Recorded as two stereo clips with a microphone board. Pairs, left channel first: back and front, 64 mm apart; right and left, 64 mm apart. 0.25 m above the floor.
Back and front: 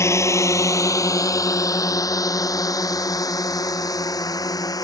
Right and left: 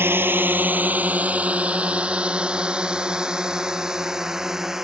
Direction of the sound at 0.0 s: 140° left.